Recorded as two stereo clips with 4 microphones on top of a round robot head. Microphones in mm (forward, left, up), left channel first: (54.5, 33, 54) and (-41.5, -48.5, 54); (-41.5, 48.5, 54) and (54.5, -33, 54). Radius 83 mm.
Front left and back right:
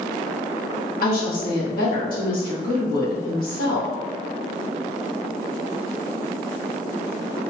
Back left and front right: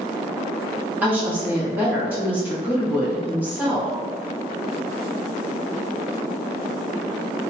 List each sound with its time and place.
1.0 s a woman speaking: 35° left, 1.3 m